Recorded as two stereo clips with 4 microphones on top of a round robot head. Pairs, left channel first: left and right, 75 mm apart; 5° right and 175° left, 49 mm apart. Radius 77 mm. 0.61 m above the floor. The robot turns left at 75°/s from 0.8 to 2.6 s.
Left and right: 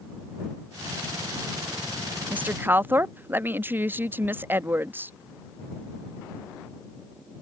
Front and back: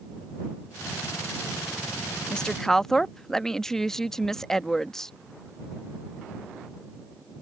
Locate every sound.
2.3 s a woman speaking: 50° right; by 5.1 s 75° right